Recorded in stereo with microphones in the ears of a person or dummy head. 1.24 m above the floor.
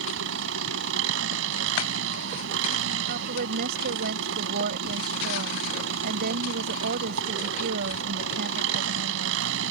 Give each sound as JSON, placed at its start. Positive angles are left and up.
{"t": 0.0, "sound": "an engine running", "side_deg": -65}
{"t": 3.1, "sound": "a woman speaking", "side_deg": -60}